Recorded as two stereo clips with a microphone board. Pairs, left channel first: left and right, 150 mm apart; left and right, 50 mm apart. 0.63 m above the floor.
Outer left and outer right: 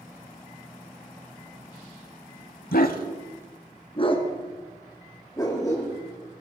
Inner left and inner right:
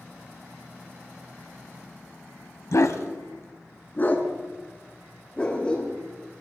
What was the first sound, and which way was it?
A dog barking, 75° left (ahead or behind).